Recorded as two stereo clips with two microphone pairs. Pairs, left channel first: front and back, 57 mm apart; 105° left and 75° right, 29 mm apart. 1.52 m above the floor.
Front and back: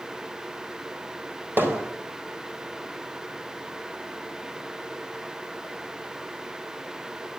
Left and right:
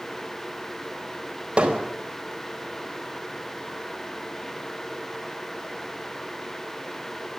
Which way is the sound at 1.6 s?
130° right.